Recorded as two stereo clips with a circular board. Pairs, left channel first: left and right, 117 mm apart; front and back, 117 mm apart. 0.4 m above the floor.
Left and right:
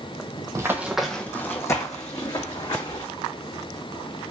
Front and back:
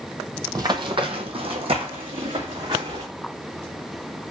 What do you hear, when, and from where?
0.6 s running footsteps: 140° right, 0.5 m; by 3.0 s 135° left, 1.5 m